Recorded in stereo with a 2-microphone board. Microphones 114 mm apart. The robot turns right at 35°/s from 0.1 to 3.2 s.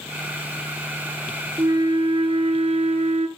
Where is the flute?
145° right, 0.9 m; by 3.3 s 90° right, 0.9 m.